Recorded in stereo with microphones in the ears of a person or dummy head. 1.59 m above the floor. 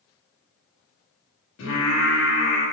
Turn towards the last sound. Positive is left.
turn(degrees=75)  # may be behind; listen again after turning